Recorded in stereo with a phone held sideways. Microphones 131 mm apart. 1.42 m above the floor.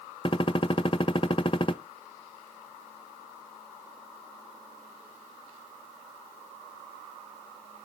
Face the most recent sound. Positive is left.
turn(degrees=35)  # may be behind; listen again after turning